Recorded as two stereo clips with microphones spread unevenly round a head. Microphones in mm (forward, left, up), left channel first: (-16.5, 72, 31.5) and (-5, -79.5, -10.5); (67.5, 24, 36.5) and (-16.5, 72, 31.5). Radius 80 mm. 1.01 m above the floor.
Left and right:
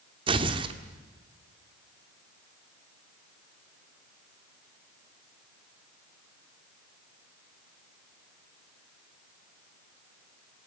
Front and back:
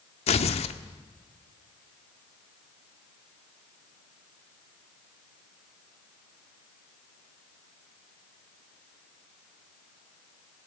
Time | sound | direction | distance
0.3 | tearing paper | 25° right | 1.4 m